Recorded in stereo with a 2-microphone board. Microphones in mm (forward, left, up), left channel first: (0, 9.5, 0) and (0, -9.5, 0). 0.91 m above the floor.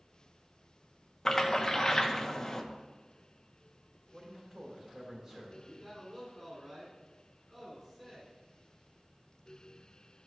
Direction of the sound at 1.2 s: 30° left (ahead or behind).